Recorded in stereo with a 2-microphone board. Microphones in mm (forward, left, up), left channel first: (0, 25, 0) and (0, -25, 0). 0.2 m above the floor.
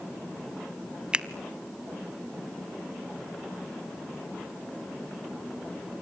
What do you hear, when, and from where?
1.1 s a finger snap: 20° right (ahead or behind), 0.8 m